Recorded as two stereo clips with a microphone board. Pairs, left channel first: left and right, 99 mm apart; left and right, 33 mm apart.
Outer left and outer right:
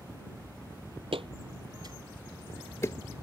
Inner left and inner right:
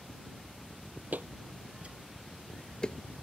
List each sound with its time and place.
1.1 s footsteps: 65° right (ahead or behind); by 3.0 s 35° left (ahead or behind)